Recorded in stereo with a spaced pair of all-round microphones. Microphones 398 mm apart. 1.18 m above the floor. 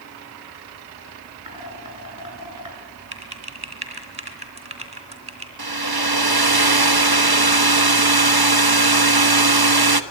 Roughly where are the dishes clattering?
Right.